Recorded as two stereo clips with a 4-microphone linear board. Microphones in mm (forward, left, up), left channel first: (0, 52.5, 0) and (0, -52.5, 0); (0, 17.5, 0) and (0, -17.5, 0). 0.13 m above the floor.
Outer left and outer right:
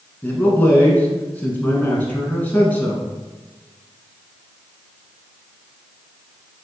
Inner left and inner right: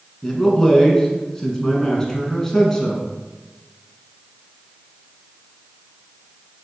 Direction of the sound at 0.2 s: 15° left (ahead or behind).